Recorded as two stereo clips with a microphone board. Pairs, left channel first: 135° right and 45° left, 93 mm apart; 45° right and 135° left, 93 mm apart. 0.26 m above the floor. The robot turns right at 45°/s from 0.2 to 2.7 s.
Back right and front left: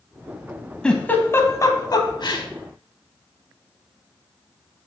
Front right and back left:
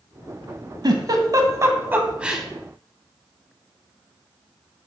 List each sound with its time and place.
0.8 s a giggle: 145° left, 0.8 m; by 2.5 s 140° right, 0.8 m